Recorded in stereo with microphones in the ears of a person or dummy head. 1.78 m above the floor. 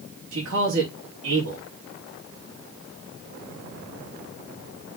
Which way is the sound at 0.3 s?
85° right.